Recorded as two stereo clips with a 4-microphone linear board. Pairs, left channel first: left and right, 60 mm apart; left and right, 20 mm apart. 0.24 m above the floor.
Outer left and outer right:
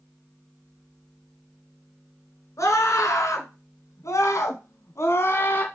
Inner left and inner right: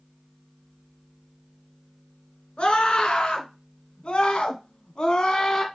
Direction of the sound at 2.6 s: 55° left (ahead or behind).